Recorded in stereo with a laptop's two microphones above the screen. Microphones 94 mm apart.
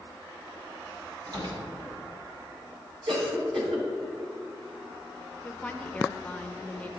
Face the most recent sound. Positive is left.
turn(degrees=15)  # may be behind; listen again after turning